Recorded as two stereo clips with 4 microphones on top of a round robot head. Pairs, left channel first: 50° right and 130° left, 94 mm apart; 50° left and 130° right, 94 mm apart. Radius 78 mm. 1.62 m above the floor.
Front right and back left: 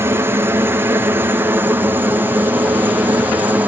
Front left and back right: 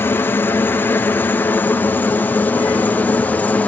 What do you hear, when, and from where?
0.0 s a helicopter: 95° left